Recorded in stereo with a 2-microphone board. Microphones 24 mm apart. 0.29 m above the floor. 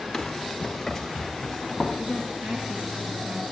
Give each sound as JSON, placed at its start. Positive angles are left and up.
{"t": 0.1, "sound": "running footsteps", "side_deg": 15, "distance_m": 1.0}
{"t": 2.0, "sound": "a woman speaking", "side_deg": -65, "distance_m": 3.5}